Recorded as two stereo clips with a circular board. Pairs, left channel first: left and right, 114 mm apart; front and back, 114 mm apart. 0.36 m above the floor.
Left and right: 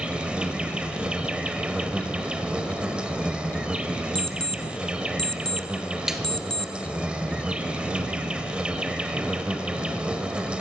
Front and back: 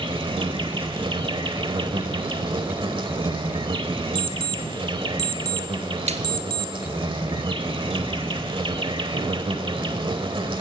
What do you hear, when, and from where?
0.0 s an insect: 170° right, 1.2 m
4.2 s an alarm clock: 5° left, 1.4 m
6.1 s a snare drum: 175° right, 1.8 m